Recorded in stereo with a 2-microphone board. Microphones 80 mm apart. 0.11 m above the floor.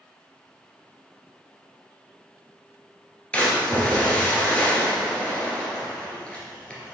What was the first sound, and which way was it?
A splash, 15° left (ahead or behind).